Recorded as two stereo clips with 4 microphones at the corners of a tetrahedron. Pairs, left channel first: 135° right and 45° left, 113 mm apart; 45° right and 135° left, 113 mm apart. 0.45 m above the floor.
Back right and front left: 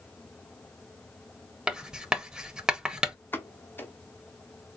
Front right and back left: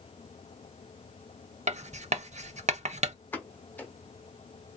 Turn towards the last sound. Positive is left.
turn(degrees=-90)